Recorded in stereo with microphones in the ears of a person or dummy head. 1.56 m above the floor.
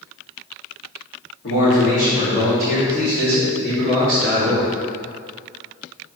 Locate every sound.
1.4 s a man speaking: 60° left (ahead or behind), 3 m; by 4.7 s 20° left (ahead or behind), 3.5 m